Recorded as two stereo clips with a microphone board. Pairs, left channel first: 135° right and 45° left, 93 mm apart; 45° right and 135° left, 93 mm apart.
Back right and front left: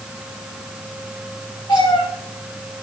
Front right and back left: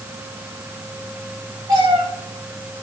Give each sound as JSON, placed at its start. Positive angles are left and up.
{"t": 1.7, "sound": "a cat meowing", "azimuth_deg": -170, "distance_m": 8.5}